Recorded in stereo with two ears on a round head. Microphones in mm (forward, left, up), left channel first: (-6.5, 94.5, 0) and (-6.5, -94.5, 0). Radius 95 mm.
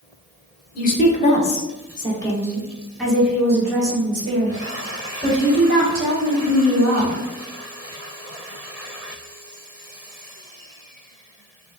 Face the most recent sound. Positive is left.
turn(degrees=-45)  # may be behind; listen again after turning